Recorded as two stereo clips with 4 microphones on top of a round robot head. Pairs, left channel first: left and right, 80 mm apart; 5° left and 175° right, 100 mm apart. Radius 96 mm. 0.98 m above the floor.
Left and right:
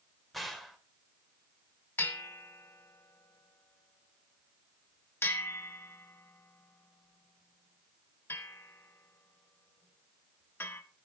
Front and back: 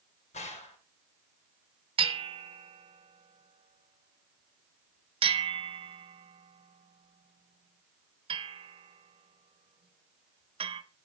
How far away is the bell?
About 1.4 m.